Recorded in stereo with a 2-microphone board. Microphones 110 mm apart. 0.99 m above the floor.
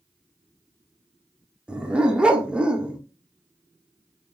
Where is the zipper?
I don't hear a zipper.